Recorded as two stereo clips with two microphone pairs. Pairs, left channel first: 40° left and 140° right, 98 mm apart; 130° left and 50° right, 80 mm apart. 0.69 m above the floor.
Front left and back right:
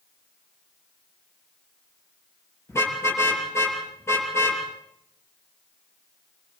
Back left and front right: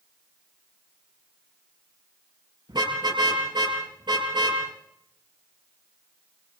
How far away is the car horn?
About 7.5 m.